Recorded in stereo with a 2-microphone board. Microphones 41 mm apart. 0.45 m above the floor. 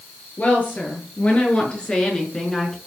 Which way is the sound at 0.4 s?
40° left (ahead or behind).